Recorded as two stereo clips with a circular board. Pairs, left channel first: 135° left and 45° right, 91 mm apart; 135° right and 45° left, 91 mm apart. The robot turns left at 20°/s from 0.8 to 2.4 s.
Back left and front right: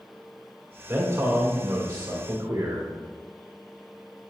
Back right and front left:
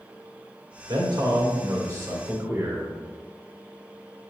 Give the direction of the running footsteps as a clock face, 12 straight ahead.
No running footsteps in this recording.